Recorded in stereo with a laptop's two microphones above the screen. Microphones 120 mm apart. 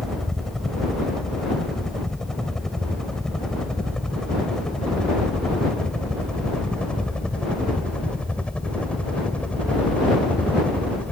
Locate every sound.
0.0 s a helicopter: 5° left (ahead or behind); by 11.1 s 10° left (ahead or behind)